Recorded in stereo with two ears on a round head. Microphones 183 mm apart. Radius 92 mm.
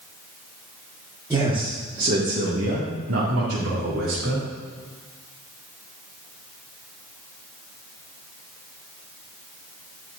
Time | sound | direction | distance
1.3 | a man speaking | 15° right (ahead or behind) | 1.7 m